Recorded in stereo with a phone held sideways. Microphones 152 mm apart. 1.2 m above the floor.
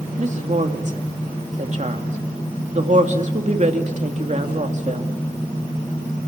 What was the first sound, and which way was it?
A woman speaking, 50° right (ahead or behind).